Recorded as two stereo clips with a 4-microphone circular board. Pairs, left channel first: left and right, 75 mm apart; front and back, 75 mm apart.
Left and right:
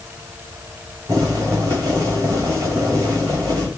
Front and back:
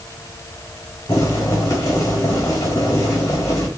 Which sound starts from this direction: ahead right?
Boiling, at 1.1 s.